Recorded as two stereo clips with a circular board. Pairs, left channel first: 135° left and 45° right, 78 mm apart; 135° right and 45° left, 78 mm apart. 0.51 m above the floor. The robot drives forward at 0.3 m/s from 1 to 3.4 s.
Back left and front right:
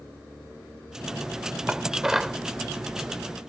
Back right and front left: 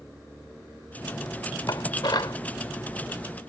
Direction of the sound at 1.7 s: 120° right.